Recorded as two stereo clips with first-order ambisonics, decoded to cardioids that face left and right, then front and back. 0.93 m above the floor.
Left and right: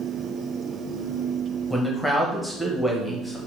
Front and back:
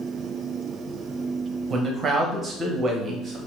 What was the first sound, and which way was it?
A man speaking, 175° left.